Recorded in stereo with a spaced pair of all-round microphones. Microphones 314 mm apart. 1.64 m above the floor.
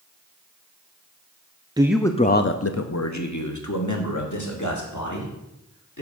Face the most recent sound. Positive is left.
turn(degrees=65)  # may be behind; listen again after turning